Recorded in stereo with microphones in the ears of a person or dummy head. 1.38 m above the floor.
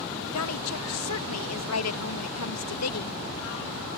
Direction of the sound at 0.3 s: 80° left.